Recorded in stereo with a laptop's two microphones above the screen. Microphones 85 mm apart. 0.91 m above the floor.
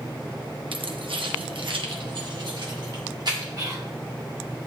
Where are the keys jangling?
75° right (ahead or behind), 0.9 m; by 3.5 s 55° right (ahead or behind), 2 m.